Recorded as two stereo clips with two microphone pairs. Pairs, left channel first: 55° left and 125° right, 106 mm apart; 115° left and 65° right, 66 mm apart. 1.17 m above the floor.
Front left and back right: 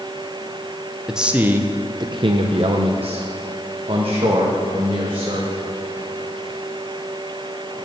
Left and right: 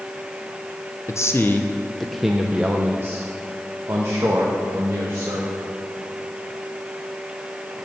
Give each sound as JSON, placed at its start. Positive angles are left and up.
{"t": 1.1, "sound": "a man speaking", "azimuth_deg": 150, "distance_m": 0.7}